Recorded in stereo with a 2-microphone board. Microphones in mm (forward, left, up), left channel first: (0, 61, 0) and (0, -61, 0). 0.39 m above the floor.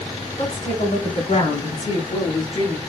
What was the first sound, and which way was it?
A woman speaking, 70° left (ahead or behind).